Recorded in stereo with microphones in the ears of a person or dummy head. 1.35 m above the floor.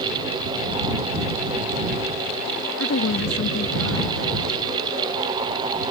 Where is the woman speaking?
85° left.